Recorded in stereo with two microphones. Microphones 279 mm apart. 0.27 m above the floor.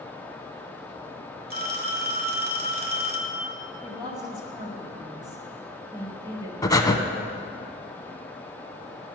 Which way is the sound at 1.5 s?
35° right (ahead or behind).